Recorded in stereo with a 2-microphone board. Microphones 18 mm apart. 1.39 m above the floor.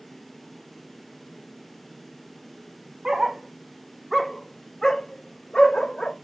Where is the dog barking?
35° right (ahead or behind), 1.1 m; by 6.2 s 50° left (ahead or behind), 1.8 m.